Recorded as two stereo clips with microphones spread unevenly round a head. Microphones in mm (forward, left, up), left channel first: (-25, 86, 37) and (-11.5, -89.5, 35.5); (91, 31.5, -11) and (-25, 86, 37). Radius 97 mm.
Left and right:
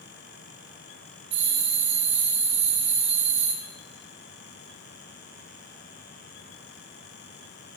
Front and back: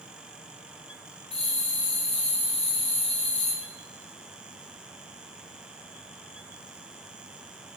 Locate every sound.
1.3 s a bell: 75° right, 1.8 m